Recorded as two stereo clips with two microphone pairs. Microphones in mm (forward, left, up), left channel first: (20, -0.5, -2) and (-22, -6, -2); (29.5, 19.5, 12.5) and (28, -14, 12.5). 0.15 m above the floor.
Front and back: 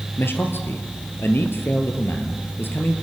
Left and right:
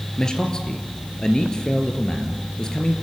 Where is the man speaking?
20° left, 3 m.